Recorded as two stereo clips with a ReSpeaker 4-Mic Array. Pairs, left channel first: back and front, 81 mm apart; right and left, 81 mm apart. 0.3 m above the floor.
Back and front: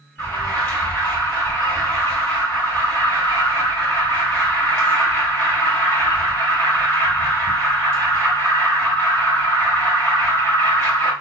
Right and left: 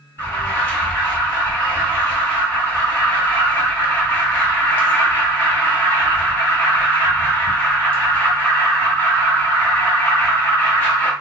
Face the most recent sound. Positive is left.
turn(degrees=-130)